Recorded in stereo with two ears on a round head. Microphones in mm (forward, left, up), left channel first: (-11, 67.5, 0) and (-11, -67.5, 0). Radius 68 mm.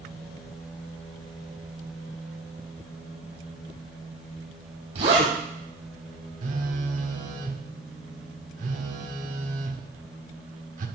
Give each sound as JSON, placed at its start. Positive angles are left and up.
{"t": 5.0, "sound": "a zipper", "side_deg": -50, "distance_m": 5.0}
{"t": 6.4, "sound": "a phone buzzing", "side_deg": -55, "distance_m": 1.1}